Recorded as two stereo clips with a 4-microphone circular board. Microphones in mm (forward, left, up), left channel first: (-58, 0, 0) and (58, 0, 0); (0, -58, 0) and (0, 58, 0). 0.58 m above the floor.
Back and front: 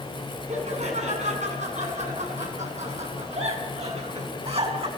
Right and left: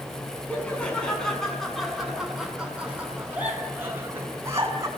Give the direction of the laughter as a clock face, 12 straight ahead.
12 o'clock.